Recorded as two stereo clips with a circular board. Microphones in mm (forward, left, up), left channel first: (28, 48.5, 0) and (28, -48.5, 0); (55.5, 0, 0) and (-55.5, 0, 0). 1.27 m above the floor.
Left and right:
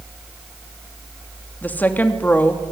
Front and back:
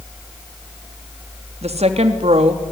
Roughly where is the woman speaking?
Behind.